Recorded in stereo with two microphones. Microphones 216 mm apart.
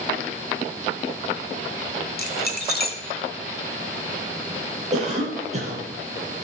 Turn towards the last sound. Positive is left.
turn(degrees=-30)  # may be behind; listen again after turning